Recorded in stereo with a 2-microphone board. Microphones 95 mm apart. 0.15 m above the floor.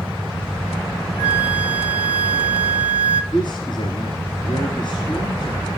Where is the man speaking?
50° left (ahead or behind), 2 m.